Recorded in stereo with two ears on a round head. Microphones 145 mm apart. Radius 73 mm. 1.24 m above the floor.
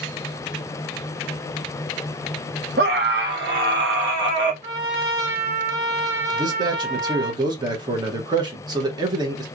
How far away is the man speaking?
About 1.0 m.